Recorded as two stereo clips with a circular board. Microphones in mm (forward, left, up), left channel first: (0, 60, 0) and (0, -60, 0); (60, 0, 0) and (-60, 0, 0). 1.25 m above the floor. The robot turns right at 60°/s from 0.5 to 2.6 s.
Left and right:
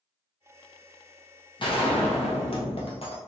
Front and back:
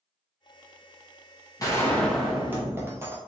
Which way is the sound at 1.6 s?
55° left.